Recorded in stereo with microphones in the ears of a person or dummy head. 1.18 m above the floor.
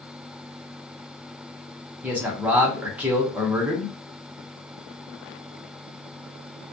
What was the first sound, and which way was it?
A man speaking, 5° right (ahead or behind).